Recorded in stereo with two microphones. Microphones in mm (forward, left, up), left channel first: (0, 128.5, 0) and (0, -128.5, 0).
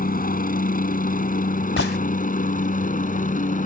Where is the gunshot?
55° left (ahead or behind).